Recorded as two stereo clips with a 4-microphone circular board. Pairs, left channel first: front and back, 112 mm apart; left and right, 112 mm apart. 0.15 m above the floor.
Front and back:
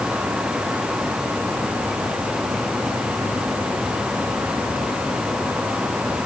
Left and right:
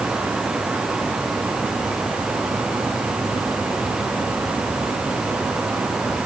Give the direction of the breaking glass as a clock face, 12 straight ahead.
No breaking glass in this recording.